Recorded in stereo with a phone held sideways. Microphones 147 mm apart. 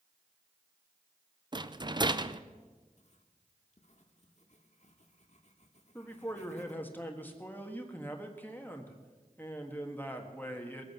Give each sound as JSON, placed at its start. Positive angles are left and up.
{"t": 1.5, "sound": "a rattle", "side_deg": -30, "distance_m": 0.5}
{"t": 3.0, "sound": "writing", "side_deg": 50, "distance_m": 1.3}
{"t": 6.0, "sound": "a man speaking", "side_deg": 15, "distance_m": 1.6}